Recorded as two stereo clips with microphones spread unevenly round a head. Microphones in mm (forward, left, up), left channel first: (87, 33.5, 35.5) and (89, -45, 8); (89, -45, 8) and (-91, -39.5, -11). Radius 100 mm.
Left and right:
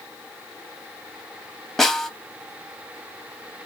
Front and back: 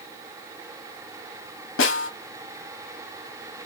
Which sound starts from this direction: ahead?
A snare drum, at 1.8 s.